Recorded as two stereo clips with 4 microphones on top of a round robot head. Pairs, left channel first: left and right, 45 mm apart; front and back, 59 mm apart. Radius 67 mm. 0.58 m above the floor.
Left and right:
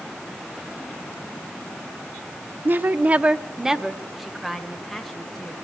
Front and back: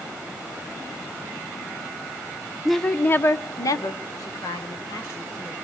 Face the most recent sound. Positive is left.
turn(degrees=5)